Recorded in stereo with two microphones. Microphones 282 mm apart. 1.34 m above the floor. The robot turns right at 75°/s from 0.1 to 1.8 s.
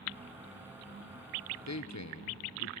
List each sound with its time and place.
1.7 s a man speaking: 70° left (ahead or behind), 0.7 m; by 2.7 s 75° left (ahead or behind), 0.7 m